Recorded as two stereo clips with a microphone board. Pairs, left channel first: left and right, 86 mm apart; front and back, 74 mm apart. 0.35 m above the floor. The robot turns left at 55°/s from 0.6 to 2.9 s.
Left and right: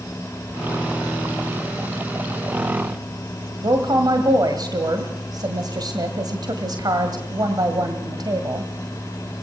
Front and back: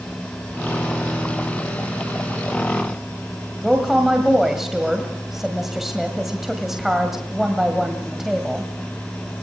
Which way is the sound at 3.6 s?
95° right.